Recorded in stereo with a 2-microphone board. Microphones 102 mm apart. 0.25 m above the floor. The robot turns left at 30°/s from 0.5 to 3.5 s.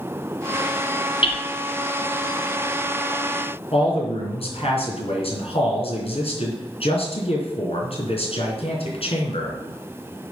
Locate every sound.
1.2 s hammering: 55° left (ahead or behind), 1.3 m; by 1.4 s 60° left (ahead or behind), 1.3 m
3.7 s a man speaking: 65° left (ahead or behind), 3 m